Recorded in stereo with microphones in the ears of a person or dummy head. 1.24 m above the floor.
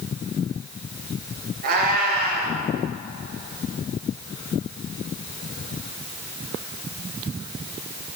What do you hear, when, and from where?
1.6 s a cat meowing: 55° right (ahead or behind), 2.5 m